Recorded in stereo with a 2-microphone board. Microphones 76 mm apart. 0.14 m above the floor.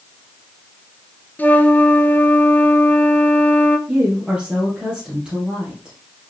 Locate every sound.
1.4 s a flute: 20° left (ahead or behind), 1.0 m
3.9 s a woman speaking: 10° right (ahead or behind), 3 m